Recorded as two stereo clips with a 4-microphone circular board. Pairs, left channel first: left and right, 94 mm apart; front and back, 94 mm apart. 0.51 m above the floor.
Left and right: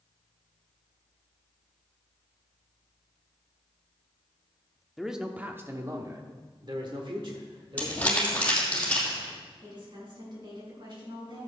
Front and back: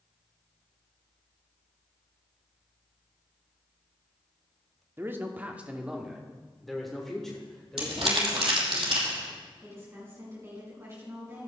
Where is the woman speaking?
120° right, 4.5 m.